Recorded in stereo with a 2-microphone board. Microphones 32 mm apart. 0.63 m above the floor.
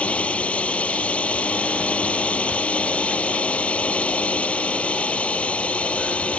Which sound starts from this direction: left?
A drone, at 0.0 s.